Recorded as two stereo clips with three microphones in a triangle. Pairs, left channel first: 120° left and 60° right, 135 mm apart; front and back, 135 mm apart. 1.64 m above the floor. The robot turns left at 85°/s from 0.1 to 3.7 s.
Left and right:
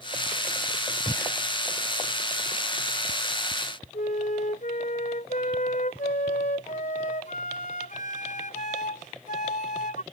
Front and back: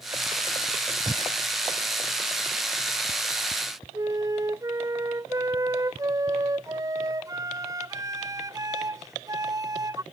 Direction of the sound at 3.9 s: 115° left.